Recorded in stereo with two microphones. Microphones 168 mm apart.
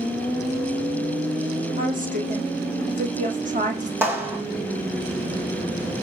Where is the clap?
15° right (ahead or behind), 6.5 m.